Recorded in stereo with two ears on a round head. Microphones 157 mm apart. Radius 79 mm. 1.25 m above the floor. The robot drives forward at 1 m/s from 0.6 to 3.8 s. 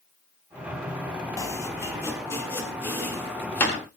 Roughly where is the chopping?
Centre.